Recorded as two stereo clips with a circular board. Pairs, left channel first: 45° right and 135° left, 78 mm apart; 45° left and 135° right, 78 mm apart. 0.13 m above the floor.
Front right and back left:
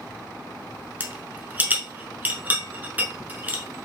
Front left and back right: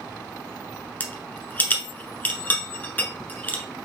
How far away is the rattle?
About 0.9 m.